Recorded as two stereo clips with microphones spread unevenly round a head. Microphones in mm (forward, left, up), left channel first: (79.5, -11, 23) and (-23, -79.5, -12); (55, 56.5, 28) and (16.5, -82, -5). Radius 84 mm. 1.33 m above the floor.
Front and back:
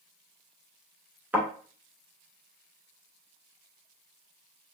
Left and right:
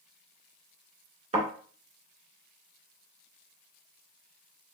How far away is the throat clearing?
No throat clearing in this recording.